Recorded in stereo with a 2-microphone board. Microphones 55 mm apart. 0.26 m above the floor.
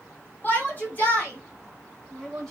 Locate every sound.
0.4 s a shout: 35° left (ahead or behind), 1.9 m; by 2.5 s 15° left (ahead or behind), 1.7 m